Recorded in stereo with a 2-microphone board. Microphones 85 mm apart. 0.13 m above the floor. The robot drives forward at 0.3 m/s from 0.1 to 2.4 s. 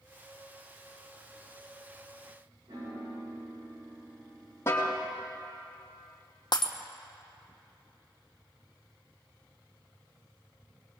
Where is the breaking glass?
60° left (ahead or behind), 1.1 m.